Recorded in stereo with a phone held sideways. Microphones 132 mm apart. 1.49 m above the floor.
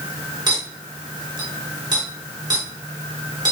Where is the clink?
35° right (ahead or behind), 3 m.